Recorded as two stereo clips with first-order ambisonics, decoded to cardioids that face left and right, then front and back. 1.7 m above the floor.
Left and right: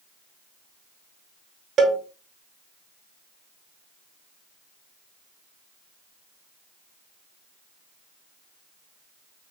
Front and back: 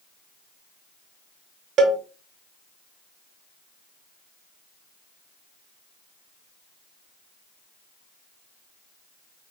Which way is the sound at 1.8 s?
145° right.